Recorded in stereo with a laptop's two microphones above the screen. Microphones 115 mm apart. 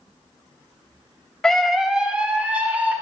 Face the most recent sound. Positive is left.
turn(degrees=-15)  # may be behind; listen again after turning